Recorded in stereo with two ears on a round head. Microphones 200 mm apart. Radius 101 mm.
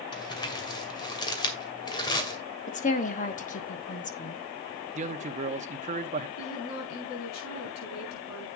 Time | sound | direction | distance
0.1 | crumpling | 20° left (ahead or behind) | 2 m
2.7 | a woman speaking | 35° left (ahead or behind) | 1.3 m
5.0 | a man speaking | 35° right (ahead or behind) | 0.9 m
6.4 | a woman speaking | 65° left (ahead or behind) | 6.5 m